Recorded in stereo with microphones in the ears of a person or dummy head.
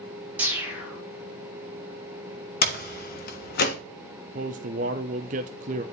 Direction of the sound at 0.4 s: 10° right (ahead or behind).